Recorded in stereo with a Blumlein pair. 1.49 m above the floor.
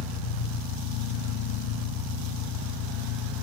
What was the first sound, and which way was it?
An engine running, 45° left.